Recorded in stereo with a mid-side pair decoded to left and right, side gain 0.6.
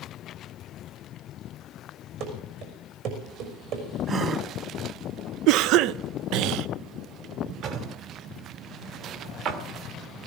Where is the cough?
70° right, 0.5 m.